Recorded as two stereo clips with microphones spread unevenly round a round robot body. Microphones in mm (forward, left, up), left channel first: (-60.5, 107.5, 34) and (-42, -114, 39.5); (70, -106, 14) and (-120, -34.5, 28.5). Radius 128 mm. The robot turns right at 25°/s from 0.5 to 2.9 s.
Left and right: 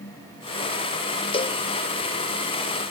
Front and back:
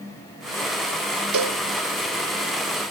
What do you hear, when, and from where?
1.3 s a cowbell: 160° left; by 1.6 s 170° left